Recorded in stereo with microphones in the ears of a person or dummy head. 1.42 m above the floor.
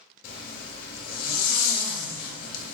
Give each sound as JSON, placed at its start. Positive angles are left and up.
{"t": 0.2, "sound": "a zipper", "side_deg": 55, "distance_m": 0.8}